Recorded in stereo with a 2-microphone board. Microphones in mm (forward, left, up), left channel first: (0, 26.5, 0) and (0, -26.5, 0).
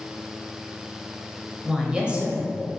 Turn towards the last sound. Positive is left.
turn(degrees=-30)  # may be behind; listen again after turning